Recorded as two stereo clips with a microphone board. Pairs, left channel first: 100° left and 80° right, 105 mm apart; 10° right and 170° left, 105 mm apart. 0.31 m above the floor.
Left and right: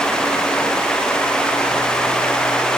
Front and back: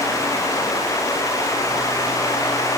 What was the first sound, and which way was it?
Only background noise.